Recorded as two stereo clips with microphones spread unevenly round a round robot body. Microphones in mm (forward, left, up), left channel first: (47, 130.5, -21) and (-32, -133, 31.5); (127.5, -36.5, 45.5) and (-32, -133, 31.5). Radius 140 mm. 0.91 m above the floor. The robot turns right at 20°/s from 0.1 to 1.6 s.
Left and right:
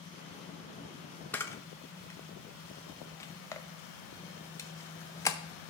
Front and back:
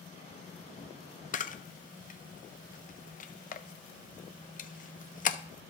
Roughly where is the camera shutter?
Ahead.